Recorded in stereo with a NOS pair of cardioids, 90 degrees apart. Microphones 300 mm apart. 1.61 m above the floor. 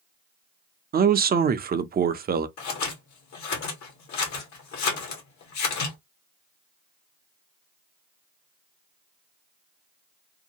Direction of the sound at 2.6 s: 70° left.